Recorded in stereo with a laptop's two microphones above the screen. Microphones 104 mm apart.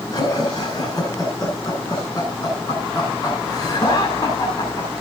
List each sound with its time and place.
0.1 s laughter: 35° left (ahead or behind), 10 m